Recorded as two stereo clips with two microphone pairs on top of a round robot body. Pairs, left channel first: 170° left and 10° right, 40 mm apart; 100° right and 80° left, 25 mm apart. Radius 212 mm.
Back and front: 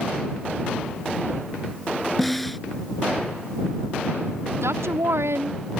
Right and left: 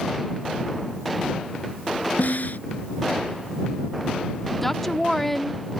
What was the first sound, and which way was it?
A snare drum, 100° right.